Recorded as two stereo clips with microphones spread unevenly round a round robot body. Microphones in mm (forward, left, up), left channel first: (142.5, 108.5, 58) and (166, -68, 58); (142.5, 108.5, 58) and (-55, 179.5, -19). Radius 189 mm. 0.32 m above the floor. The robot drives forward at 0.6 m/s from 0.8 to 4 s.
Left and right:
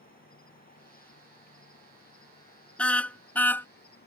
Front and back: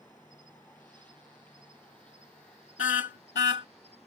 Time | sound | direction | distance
0.0 | an insect | 65° left | ?
2.8 | a car horn | 15° left | ?